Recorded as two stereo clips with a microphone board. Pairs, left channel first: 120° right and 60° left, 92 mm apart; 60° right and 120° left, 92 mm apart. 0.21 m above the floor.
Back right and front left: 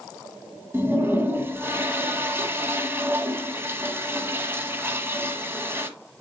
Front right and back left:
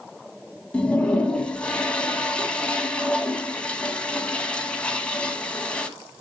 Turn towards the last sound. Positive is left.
turn(degrees=10)